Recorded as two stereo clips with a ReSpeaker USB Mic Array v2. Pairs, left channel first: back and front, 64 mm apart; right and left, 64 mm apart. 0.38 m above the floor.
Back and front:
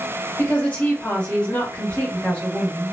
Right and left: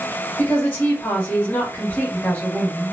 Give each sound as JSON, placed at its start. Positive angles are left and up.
{"t": 0.4, "sound": "a woman speaking", "azimuth_deg": -125, "distance_m": 1.5}